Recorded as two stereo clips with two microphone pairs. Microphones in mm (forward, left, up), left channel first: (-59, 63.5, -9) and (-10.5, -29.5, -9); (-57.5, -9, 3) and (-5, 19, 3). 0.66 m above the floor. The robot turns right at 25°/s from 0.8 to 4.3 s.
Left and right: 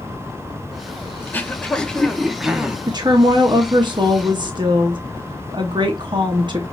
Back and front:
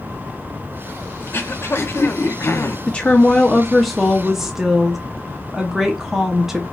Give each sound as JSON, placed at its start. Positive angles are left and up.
{"t": 1.2, "sound": "throat clearing", "azimuth_deg": 180, "distance_m": 0.7}
{"t": 2.9, "sound": "a woman speaking", "azimuth_deg": -95, "distance_m": 0.8}